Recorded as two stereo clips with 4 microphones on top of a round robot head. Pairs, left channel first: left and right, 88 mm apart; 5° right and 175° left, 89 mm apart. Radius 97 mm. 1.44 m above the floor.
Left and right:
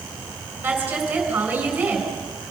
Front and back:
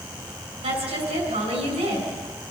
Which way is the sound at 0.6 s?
160° right.